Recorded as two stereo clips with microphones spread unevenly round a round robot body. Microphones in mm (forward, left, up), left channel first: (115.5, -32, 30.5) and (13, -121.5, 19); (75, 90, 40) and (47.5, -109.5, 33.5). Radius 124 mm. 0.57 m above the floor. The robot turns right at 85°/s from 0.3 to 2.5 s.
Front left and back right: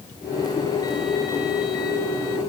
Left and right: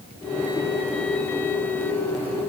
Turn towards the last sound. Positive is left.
No sound to turn to.